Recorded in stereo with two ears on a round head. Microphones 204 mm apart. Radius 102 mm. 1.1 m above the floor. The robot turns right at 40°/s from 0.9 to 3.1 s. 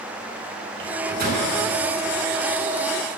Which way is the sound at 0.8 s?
55° right (ahead or behind).